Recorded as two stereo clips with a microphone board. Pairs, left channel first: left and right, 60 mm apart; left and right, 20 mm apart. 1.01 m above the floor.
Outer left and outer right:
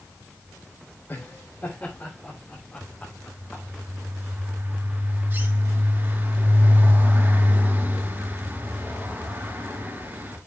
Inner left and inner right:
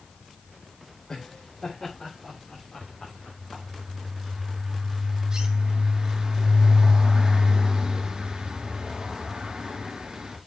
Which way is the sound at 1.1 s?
40° left (ahead or behind).